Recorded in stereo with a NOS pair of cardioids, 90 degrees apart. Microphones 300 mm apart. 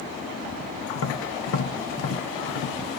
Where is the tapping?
50° left, 1.1 m.